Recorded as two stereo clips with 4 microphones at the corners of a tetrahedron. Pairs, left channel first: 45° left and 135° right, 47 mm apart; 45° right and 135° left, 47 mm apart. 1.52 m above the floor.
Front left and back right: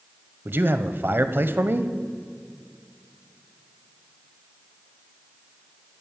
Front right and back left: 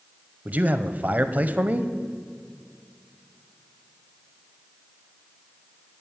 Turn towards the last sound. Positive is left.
turn(degrees=-170)